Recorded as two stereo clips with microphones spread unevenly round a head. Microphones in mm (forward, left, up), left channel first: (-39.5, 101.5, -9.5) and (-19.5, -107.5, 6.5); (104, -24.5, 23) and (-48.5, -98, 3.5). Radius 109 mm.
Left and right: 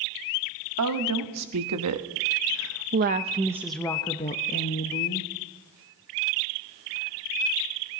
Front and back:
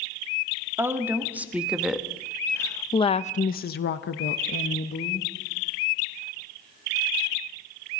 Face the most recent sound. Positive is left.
turn(degrees=60)